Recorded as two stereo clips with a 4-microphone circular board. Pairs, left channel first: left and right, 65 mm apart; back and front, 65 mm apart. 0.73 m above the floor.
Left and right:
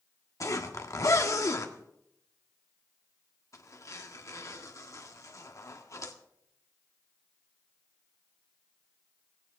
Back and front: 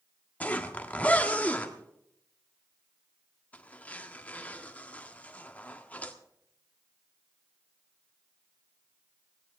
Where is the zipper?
115° left, 1.4 m.